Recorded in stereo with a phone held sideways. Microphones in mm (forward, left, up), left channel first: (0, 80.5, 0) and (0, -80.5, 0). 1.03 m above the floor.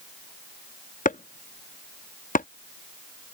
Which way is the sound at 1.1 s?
55° left (ahead or behind).